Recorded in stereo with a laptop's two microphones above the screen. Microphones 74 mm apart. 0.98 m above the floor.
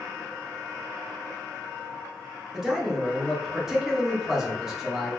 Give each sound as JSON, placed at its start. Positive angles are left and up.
{"t": 2.5, "sound": "a man speaking", "side_deg": -5, "distance_m": 1.0}